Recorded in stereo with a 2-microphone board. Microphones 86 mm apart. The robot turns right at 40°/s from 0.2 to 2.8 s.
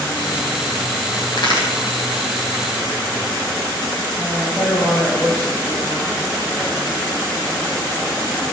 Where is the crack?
65° left (ahead or behind), 4 m; by 1.7 s 55° left (ahead or behind), 4 m.